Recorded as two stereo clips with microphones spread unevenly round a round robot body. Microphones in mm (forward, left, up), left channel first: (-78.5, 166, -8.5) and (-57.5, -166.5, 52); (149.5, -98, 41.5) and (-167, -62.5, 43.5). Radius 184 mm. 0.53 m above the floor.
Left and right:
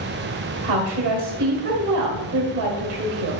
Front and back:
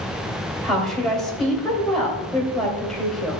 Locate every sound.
0.6 s a woman speaking: 95° right, 2.5 m